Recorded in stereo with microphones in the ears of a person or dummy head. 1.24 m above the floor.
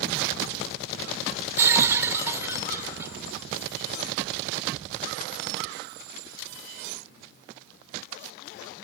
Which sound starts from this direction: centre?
Breaking glass, at 1.6 s.